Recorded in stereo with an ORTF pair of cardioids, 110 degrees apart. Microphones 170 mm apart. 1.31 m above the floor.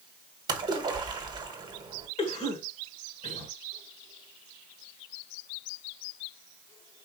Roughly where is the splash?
Ahead right.